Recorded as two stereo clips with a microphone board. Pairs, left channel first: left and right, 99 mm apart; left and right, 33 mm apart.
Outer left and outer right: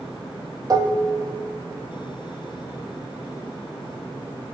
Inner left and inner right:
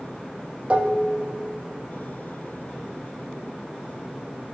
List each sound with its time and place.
0.7 s dishes clattering: 40° right (ahead or behind), 0.8 m